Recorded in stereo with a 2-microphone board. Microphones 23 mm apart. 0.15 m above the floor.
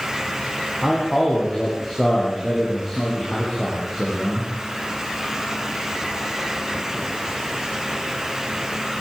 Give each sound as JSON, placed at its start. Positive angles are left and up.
{"t": 0.8, "sound": "a man speaking", "side_deg": 10, "distance_m": 9.5}